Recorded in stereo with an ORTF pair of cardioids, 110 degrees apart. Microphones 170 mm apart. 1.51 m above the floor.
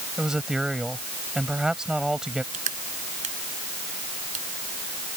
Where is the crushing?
45° right.